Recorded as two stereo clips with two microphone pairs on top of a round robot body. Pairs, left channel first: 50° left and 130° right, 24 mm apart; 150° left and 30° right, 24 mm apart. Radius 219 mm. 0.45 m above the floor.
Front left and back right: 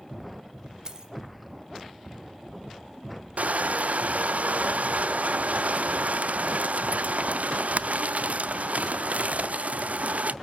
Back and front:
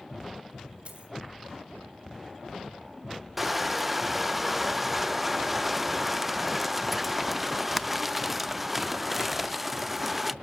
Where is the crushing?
110° right, 0.5 m.